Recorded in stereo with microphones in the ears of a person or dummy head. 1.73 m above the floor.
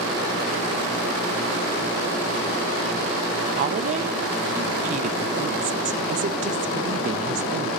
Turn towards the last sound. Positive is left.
turn(degrees=-40)  # may be behind; listen again after turning